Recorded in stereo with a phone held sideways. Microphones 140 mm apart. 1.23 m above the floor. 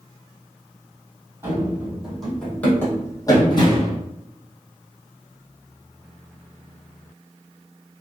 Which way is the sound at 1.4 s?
15° right (ahead or behind).